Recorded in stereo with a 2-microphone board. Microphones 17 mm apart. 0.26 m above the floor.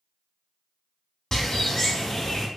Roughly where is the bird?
Left.